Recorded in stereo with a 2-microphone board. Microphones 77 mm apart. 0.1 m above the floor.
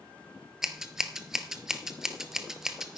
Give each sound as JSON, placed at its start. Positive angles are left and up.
{"t": 0.6, "sound": "scissors", "side_deg": -5, "distance_m": 0.8}